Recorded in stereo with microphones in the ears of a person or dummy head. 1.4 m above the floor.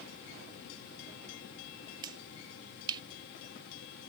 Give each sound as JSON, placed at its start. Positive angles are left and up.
{"t": 2.0, "sound": "a finger snap", "side_deg": -20}